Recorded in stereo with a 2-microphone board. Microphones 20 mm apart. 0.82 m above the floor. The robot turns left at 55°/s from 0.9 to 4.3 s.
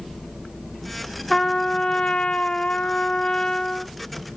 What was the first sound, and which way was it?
A trumpet, 155° left.